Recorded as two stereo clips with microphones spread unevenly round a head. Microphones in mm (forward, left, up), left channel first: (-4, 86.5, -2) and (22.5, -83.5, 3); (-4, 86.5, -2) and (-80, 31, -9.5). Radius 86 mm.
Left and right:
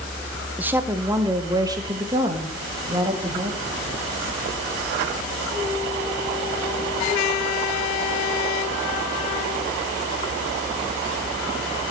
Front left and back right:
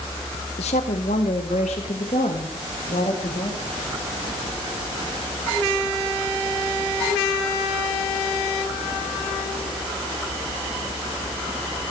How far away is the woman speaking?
About 1.1 m.